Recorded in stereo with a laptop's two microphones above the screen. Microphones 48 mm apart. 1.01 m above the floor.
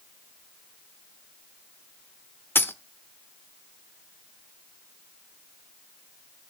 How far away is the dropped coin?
About 0.9 m.